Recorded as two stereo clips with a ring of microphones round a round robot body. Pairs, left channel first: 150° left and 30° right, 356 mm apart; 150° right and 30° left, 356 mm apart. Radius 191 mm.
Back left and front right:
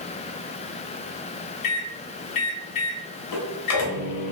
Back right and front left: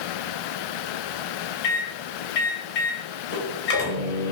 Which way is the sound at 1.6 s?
155° left.